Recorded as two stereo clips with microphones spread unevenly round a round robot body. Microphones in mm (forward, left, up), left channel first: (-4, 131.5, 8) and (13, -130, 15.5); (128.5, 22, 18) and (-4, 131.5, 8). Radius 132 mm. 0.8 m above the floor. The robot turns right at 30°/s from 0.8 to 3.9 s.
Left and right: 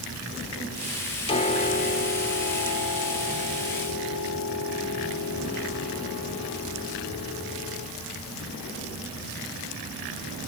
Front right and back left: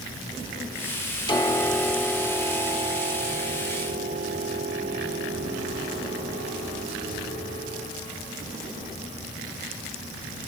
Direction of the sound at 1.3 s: 25° left.